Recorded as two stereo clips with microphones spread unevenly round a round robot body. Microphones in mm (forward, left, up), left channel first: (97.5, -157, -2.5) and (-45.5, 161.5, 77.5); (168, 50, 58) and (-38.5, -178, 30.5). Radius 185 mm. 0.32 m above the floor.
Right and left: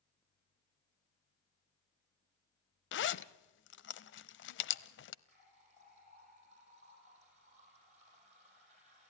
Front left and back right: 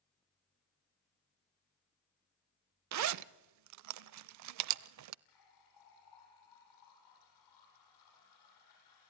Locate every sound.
2.9 s a zipper: 115° right, 0.5 m
5.2 s a running tap: 45° left, 10 m